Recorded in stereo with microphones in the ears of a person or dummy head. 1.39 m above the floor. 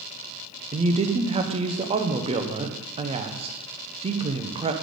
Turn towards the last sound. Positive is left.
turn(degrees=-30)  # may be behind; listen again after turning